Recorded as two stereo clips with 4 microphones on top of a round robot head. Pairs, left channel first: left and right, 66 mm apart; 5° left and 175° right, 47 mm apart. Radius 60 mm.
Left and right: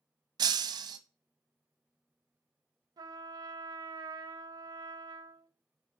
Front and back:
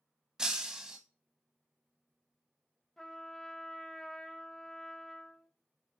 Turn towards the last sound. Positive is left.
turn(degrees=-75)